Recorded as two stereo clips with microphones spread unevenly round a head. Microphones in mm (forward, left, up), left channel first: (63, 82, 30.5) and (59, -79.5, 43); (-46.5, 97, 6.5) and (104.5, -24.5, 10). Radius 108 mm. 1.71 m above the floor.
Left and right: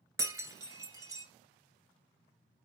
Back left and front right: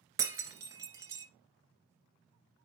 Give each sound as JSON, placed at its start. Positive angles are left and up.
{"t": 0.2, "sound": "breaking glass", "azimuth_deg": -80, "distance_m": 1.7}